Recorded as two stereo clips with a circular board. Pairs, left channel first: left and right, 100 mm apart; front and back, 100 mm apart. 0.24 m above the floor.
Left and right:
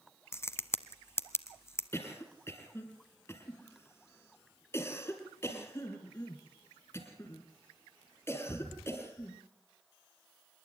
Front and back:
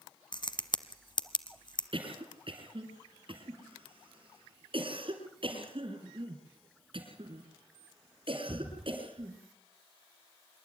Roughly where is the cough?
Behind left.